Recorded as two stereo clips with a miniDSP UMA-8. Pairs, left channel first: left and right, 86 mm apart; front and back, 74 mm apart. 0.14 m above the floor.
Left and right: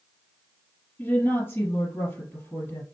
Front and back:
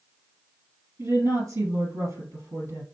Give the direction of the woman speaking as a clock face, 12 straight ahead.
7 o'clock.